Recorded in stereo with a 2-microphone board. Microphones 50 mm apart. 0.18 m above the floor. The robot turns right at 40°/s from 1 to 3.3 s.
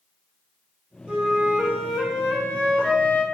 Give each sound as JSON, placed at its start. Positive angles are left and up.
{"t": 1.1, "sound": "a flute", "azimuth_deg": -40, "distance_m": 0.7}